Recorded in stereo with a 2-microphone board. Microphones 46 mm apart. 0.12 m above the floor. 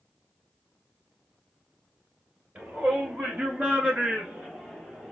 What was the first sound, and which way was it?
A shout, 35° right (ahead or behind).